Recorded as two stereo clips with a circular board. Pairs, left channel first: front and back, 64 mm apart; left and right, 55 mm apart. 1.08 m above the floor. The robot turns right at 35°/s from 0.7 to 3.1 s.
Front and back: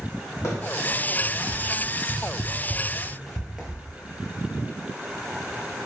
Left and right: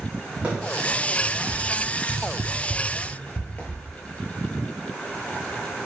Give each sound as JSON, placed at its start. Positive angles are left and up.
{"t": 0.4, "sound": "running footsteps", "azimuth_deg": -25, "distance_m": 2.5}